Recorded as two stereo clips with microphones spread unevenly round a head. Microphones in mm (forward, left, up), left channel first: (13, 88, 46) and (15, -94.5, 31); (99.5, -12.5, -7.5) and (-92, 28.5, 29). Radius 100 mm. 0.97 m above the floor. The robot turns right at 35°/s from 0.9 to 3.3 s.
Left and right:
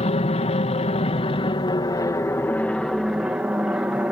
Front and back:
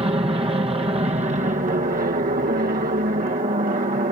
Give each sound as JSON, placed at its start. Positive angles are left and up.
{"t": 0.0, "sound": "an aircraft", "azimuth_deg": 110}